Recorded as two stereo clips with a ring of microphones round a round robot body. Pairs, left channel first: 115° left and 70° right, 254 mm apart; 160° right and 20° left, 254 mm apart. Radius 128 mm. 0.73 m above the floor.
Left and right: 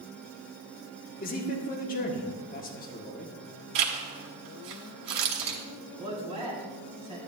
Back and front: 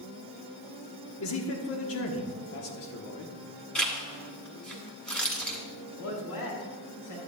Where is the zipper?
70° right, 1.7 m.